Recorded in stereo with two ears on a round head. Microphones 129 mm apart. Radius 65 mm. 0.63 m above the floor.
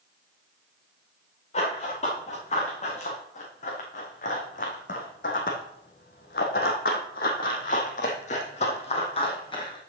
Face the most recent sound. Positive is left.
turn(degrees=30)  # may be behind; listen again after turning